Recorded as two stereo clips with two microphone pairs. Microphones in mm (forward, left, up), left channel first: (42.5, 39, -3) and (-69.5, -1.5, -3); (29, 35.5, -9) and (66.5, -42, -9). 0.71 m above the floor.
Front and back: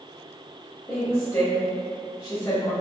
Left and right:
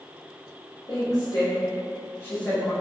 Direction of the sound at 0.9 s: 95° left.